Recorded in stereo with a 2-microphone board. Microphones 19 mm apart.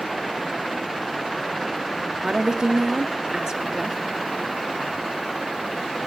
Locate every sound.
2.2 s a woman speaking: 45° right (ahead or behind), 1.4 m